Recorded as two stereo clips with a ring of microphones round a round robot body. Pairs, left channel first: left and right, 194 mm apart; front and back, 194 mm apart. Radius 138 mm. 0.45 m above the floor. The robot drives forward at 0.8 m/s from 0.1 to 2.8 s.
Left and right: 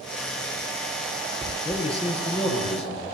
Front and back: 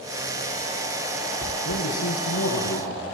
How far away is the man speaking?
About 8.5 m.